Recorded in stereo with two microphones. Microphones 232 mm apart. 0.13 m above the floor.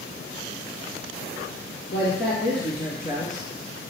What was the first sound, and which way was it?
A man speaking, 50° left (ahead or behind).